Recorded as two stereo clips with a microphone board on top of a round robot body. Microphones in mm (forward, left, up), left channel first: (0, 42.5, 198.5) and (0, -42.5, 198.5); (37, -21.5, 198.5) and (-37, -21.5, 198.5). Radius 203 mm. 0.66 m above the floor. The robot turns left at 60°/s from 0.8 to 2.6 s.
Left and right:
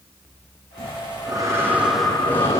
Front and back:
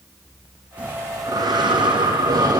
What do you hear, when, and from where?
0.8 s breathing: 110° right, 7 m; by 2.6 s 145° left, 7 m